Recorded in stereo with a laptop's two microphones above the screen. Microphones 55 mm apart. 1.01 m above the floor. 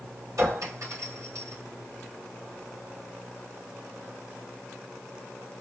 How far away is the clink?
About 2 m.